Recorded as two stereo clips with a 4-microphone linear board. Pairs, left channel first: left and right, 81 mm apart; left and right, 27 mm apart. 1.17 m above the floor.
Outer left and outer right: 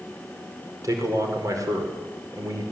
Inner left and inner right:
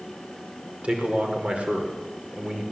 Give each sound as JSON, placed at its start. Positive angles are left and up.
{"t": 0.8, "sound": "a man speaking", "side_deg": -45, "distance_m": 5.0}